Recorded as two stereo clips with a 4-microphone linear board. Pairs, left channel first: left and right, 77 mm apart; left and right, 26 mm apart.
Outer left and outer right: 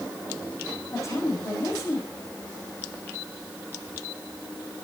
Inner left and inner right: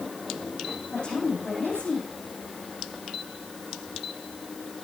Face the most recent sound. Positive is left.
turn(degrees=40)  # may be behind; listen again after turning